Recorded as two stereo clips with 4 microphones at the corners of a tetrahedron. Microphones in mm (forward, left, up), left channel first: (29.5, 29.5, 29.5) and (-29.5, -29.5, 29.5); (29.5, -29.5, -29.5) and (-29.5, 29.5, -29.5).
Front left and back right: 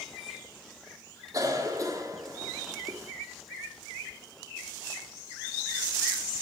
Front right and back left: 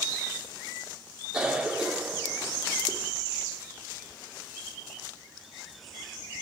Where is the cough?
150° right, 1.6 m.